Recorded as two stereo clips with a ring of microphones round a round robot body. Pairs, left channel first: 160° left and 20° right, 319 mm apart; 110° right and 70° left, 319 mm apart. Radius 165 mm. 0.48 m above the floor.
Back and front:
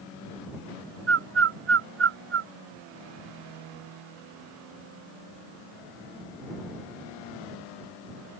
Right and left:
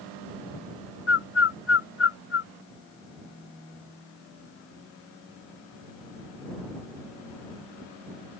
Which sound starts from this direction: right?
A bird, at 1.1 s.